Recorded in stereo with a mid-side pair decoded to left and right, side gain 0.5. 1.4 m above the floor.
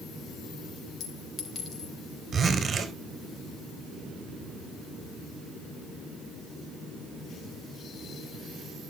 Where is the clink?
55° left, 4 m.